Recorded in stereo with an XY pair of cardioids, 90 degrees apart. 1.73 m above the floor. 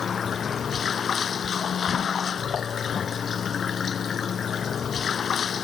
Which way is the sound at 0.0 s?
55° left.